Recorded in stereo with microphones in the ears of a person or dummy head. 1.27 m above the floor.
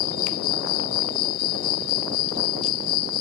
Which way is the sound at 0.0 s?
55° left (ahead or behind).